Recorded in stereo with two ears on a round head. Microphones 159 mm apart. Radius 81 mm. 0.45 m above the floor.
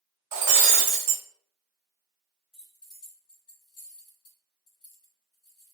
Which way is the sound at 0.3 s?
30° right (ahead or behind).